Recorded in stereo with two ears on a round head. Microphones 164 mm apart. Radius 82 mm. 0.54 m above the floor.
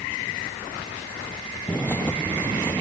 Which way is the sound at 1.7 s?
10° left (ahead or behind).